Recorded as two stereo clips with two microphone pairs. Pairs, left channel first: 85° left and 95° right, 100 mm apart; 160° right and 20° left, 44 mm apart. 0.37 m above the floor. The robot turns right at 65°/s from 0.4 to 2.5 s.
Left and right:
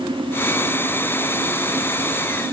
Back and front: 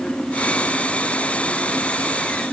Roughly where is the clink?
I don't hear a clink.